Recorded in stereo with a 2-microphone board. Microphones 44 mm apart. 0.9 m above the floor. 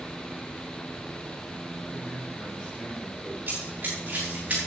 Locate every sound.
1.8 s a man speaking: 15° left (ahead or behind), 5 m; by 3.4 s 25° left (ahead or behind), 4.5 m
3.5 s running footsteps: 40° right (ahead or behind), 5.5 m; by 4.6 s 30° right (ahead or behind), 6 m